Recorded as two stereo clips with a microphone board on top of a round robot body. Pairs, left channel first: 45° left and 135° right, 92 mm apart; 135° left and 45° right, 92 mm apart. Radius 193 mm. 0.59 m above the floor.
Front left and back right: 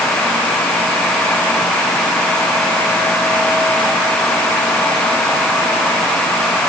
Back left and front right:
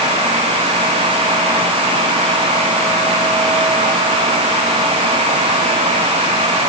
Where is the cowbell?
I don't hear a cowbell.